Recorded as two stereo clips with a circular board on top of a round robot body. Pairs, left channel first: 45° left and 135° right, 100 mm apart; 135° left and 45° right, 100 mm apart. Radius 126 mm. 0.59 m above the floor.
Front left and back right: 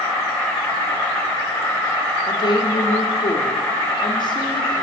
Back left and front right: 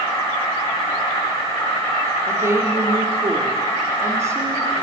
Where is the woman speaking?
10° left, 1.8 m.